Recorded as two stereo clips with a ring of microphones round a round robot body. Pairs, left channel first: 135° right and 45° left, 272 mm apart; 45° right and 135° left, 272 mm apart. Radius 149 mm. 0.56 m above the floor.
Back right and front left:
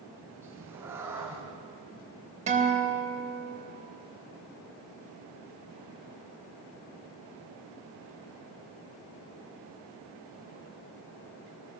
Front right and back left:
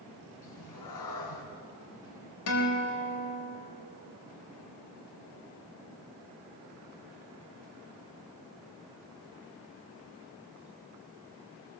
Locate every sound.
0.4 s a cat meowing: 35° right, 4 m
2.5 s a guitar: 20° right, 3.5 m